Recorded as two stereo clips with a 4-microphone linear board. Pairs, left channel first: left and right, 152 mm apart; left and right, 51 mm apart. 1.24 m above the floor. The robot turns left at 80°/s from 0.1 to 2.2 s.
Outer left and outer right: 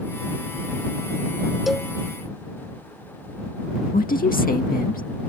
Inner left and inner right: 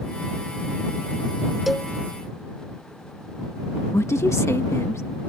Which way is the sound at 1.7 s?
5° right (ahead or behind).